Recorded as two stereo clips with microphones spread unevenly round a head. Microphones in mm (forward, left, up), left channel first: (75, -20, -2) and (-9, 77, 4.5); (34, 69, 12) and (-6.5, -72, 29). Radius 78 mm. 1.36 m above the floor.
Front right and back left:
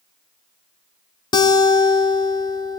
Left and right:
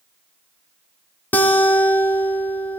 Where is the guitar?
10° right, 1.4 m.